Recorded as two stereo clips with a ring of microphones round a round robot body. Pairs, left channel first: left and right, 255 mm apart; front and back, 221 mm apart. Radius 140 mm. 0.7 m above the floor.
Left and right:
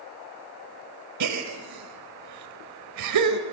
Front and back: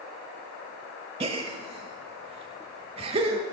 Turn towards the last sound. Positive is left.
turn(degrees=-110)